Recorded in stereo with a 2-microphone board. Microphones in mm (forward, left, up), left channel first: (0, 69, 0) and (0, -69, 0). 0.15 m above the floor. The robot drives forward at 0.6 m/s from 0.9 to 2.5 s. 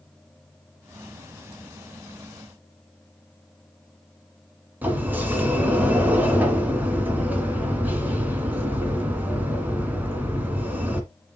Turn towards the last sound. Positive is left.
turn(degrees=-10)  # may be behind; listen again after turning